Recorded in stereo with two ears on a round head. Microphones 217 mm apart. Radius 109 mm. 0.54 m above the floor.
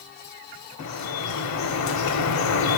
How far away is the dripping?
About 0.7 m.